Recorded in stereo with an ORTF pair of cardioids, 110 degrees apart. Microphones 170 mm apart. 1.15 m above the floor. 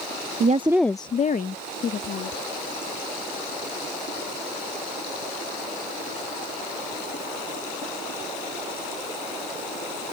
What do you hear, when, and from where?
0.4 s a woman speaking: 50° right; by 2.4 s 70° left